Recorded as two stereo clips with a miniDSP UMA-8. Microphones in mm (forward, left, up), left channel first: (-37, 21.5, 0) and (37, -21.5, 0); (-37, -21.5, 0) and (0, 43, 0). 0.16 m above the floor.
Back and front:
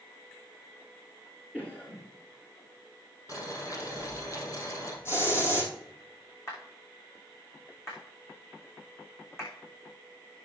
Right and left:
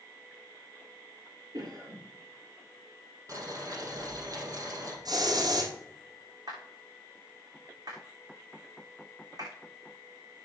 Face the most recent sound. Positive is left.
turn(degrees=90)